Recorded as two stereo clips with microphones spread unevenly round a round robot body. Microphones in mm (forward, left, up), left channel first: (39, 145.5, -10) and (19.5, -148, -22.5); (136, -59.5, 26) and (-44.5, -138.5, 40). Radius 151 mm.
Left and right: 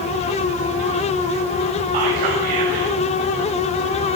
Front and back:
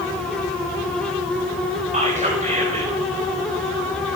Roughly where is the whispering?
Right.